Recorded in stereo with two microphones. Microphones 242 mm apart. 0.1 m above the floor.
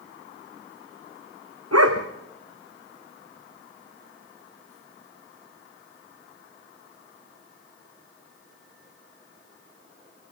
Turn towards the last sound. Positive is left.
turn(degrees=-85)